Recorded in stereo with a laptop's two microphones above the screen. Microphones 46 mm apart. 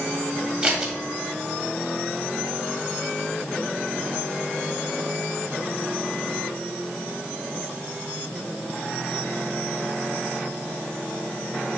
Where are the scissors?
20° right (ahead or behind), 1.5 m.